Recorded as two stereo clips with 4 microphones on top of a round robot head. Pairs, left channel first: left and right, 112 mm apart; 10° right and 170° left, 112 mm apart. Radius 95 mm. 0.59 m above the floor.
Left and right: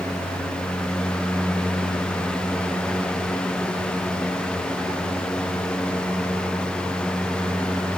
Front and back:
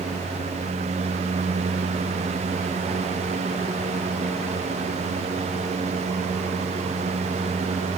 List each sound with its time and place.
Only background noise.